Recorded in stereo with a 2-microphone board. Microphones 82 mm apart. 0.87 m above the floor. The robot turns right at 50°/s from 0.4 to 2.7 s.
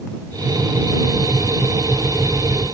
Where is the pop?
I don't hear a pop.